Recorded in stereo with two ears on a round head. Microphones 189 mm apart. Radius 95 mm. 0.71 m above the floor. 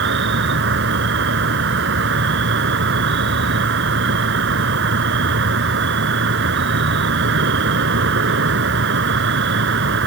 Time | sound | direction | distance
0.0 | an insect | 55° right (ahead or behind) | ?